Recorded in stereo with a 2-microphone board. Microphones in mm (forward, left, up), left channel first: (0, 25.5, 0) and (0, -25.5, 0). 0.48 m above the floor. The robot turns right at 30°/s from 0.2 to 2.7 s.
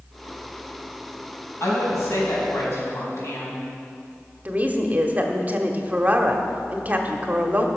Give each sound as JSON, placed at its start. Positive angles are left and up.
{"t": 1.6, "sound": "a woman speaking", "azimuth_deg": 70, "distance_m": 4.0}
{"t": 4.5, "sound": "a woman speaking", "side_deg": -35, "distance_m": 1.0}